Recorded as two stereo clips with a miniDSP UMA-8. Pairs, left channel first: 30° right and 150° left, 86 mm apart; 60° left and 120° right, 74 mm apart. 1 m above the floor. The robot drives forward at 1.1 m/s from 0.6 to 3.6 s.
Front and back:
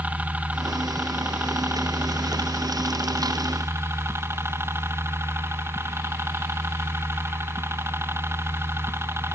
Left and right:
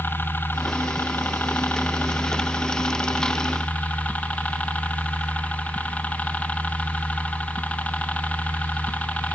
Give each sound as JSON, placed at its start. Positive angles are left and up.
{"t": 0.0, "sound": "a helicopter", "azimuth_deg": 90}